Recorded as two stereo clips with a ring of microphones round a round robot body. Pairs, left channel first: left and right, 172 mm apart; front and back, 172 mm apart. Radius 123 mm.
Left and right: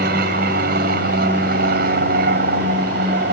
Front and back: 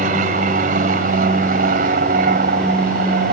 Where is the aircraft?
130° right.